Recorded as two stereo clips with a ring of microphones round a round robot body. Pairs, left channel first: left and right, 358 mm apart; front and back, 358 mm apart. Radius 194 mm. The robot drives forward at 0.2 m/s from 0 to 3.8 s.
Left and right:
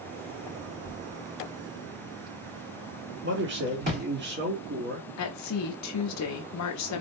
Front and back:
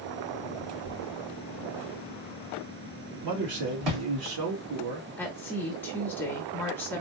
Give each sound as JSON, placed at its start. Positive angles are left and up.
{"t": 0.8, "sound": "a thud", "azimuth_deg": -155, "distance_m": 2.0}
{"t": 3.2, "sound": "a man speaking", "azimuth_deg": -150, "distance_m": 1.3}
{"t": 5.2, "sound": "a woman speaking", "azimuth_deg": 85, "distance_m": 0.8}